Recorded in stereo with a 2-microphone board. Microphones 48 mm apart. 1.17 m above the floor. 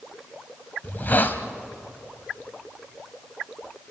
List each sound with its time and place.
0.8 s a hiss: 40° left (ahead or behind), 1.2 m